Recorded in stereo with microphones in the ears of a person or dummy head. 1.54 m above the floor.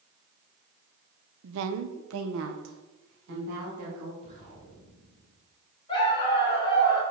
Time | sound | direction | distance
1.4 | a woman speaking | 65° right (ahead or behind) | 0.6 m
4.2 | an explosion | 35° left (ahead or behind) | 2.5 m
5.9 | a dog barking | 30° left (ahead or behind) | 2.5 m